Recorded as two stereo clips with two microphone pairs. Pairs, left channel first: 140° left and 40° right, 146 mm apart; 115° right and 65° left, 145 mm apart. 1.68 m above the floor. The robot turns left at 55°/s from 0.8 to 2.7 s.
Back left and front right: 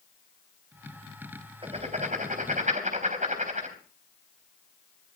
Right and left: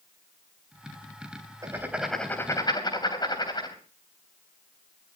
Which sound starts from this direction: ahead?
Writing, at 1.6 s.